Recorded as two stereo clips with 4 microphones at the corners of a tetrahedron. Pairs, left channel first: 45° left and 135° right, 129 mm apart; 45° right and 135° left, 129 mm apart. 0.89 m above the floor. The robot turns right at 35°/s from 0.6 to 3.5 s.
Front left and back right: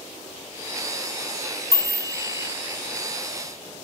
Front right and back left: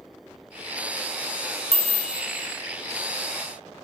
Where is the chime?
15° right, 0.7 m; by 2.5 s 10° left, 0.7 m.